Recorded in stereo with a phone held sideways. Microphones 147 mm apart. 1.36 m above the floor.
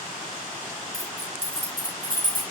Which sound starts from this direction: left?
Keys jangling, at 0.9 s.